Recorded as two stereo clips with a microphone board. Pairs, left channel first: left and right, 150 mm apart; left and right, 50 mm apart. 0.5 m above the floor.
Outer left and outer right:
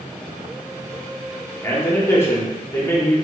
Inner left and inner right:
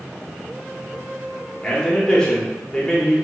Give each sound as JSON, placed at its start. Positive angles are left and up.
{"t": 1.6, "sound": "a man speaking", "side_deg": 15, "distance_m": 0.8}